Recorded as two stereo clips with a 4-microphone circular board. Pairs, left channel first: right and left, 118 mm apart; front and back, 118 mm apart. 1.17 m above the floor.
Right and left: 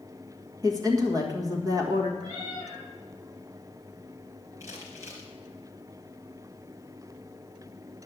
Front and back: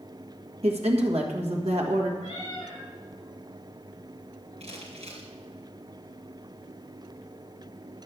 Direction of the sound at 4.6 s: 150° left.